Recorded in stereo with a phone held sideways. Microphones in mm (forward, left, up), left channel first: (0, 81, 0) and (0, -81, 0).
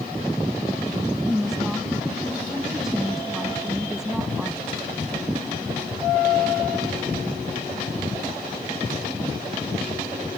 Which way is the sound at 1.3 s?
5° right (ahead or behind).